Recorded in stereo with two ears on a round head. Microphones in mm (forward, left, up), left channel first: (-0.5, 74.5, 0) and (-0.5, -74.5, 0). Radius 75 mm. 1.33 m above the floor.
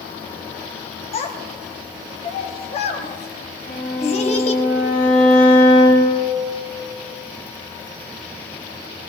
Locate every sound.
1.1 s a child speaking: 40° left (ahead or behind), 1.4 m
3.7 s a violin: 85° left, 3.5 m